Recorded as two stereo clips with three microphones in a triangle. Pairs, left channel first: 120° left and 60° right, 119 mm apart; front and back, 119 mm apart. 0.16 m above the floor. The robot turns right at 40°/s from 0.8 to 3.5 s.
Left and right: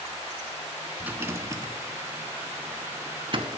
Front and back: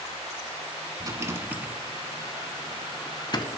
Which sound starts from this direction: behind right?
A rattle, at 1.0 s.